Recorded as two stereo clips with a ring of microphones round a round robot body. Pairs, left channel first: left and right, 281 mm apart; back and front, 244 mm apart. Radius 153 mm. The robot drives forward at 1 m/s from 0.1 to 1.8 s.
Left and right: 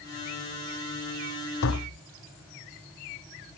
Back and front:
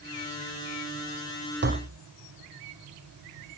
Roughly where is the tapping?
Ahead left.